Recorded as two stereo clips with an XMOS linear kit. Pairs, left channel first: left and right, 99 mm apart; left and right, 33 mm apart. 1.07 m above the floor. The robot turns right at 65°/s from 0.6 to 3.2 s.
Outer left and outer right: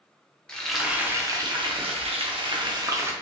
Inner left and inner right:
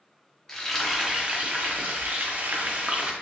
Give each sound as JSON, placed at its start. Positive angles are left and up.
{"t": 0.5, "sound": "frying", "azimuth_deg": 175, "distance_m": 0.8}